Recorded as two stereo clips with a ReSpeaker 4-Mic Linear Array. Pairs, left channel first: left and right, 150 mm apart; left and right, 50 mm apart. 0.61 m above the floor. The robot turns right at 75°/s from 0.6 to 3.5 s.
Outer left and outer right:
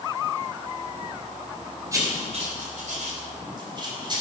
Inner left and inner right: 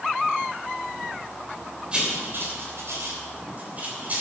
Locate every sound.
1.9 s writing: 20° right (ahead or behind), 3 m; by 4.2 s 35° right (ahead or behind), 3 m